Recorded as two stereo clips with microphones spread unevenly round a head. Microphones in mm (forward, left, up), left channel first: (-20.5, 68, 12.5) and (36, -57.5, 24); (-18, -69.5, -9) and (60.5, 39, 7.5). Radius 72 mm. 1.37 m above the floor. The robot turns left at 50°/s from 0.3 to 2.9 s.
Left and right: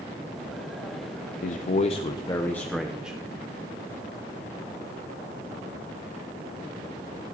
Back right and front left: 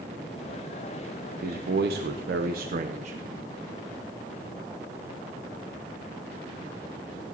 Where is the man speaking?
95° left, 0.7 m; by 3.2 s 20° left, 0.7 m.